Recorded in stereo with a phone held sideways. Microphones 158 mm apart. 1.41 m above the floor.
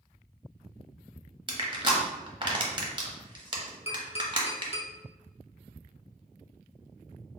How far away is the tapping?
About 0.9 m.